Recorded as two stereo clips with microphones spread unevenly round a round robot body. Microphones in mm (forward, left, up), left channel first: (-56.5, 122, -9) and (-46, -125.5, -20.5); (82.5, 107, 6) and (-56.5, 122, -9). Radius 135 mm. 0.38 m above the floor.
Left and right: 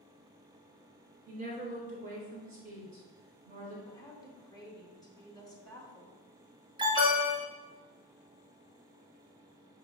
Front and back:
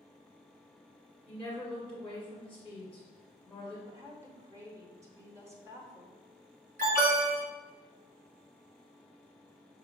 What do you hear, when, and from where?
1.3 s a woman speaking: 90° right, 1.5 m
3.9 s a woman speaking: 155° left, 0.8 m
6.8 s an alarm: 155° right, 1.4 m